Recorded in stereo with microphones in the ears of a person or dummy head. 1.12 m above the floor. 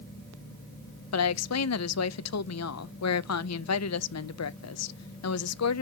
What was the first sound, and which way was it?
A woman speaking, 75° left (ahead or behind).